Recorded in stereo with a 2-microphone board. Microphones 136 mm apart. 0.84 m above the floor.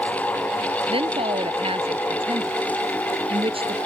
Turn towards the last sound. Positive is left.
turn(degrees=-45)  # may be behind; listen again after turning